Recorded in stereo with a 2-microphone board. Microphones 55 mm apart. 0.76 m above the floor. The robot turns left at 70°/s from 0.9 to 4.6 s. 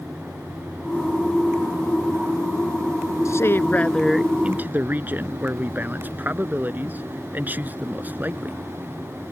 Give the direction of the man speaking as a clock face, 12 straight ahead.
10 o'clock.